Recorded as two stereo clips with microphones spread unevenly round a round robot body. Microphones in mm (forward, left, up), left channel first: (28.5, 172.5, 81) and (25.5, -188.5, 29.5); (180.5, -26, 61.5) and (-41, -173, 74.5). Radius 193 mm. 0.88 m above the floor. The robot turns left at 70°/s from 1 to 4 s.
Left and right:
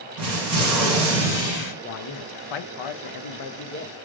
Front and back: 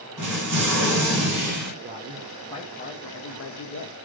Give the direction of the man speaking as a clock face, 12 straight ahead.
7 o'clock.